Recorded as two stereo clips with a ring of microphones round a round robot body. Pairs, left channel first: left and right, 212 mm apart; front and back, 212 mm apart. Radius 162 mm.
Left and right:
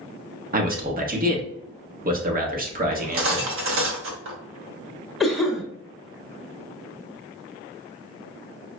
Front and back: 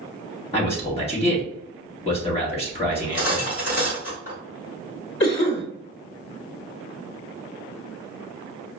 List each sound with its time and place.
0.5 s a man speaking: 55° right, 1.1 m
2.9 s cutlery clinking: 65° right, 0.9 m
5.2 s a cough: straight ahead, 1.4 m